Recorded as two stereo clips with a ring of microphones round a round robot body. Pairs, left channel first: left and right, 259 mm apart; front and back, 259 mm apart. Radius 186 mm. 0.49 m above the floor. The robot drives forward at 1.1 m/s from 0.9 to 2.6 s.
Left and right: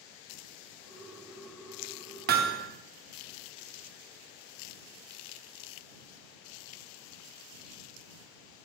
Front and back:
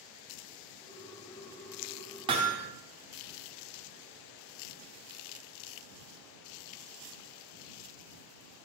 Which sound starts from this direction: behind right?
Hammering, at 2.3 s.